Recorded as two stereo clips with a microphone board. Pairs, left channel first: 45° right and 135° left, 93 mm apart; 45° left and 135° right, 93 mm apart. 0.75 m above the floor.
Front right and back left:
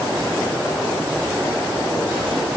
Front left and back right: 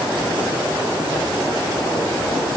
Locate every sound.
Only background noise.